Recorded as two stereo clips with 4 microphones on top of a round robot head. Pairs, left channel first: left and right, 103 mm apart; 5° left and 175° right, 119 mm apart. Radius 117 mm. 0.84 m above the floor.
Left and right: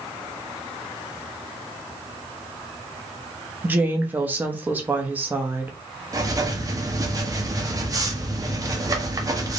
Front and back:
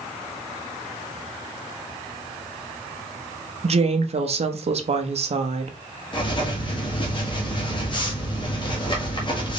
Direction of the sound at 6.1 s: 35° right.